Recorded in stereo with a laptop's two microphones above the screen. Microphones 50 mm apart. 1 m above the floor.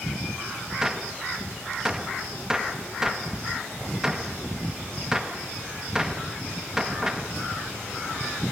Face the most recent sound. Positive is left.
turn(degrees=-10)  # may be behind; listen again after turning